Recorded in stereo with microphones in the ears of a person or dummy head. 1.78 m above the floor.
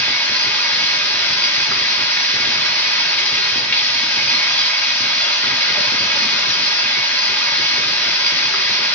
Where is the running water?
15° left (ahead or behind), 1.5 m.